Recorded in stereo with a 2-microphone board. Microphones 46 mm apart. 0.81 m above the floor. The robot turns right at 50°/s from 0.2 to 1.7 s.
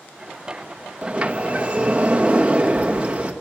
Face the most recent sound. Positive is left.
turn(degrees=-30)  # may be behind; listen again after turning